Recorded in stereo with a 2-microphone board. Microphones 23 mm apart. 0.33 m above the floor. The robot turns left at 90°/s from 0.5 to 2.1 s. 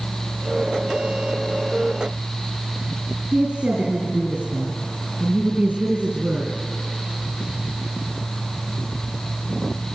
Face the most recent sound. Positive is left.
turn(degrees=-75)  # may be behind; listen again after turning